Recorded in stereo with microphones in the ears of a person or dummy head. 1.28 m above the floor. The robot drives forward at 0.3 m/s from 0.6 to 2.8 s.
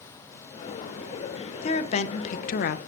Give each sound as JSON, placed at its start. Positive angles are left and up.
{"t": 1.6, "sound": "a woman speaking", "side_deg": 35, "distance_m": 0.8}